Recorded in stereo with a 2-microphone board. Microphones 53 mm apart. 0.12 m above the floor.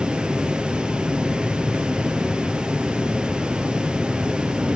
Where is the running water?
15° right (ahead or behind), 1.1 m.